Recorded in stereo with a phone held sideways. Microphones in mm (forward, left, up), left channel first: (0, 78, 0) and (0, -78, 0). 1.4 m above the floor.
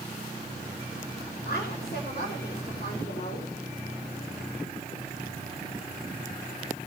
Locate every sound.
1.4 s a woman speaking: 80° left, 7 m